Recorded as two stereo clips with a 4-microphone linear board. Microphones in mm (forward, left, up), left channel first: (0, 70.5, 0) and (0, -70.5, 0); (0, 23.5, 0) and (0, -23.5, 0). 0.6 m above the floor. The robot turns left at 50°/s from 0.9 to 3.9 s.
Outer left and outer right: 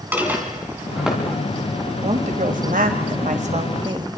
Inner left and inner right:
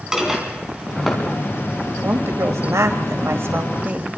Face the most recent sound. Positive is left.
turn(degrees=-145)